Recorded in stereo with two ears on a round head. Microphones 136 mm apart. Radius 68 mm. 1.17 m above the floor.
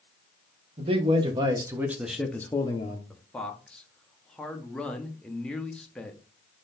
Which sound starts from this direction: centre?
A man speaking, at 3.1 s.